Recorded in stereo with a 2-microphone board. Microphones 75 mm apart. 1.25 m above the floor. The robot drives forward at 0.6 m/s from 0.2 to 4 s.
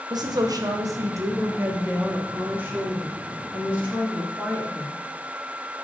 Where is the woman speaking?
55° right (ahead or behind), 0.9 m; by 4.9 s 20° right (ahead or behind), 2.5 m.